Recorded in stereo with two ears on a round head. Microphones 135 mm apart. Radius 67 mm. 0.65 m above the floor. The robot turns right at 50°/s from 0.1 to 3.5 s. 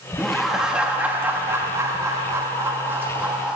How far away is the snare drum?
No snare drum in this recording.